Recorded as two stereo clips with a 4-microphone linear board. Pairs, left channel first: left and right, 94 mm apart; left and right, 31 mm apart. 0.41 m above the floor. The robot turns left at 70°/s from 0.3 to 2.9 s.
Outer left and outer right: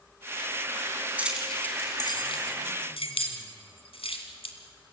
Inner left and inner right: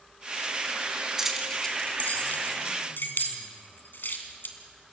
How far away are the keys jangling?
About 2.5 m.